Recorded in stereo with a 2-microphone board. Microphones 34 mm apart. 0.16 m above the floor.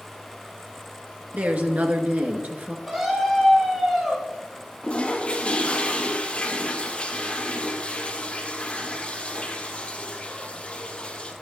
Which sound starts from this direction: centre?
A scream, at 2.9 s.